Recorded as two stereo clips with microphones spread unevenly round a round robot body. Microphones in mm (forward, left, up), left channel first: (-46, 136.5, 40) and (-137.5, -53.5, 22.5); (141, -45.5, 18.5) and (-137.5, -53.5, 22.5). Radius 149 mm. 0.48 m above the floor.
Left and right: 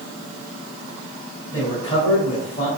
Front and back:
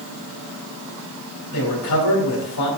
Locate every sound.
1.5 s a man speaking: 5° right, 3 m